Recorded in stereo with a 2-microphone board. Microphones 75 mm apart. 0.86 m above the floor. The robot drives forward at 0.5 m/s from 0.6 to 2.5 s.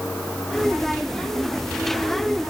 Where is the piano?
I don't hear a piano.